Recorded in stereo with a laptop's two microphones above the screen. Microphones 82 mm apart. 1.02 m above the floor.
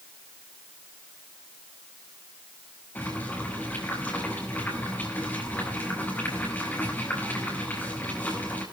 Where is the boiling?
20° left (ahead or behind), 5 m.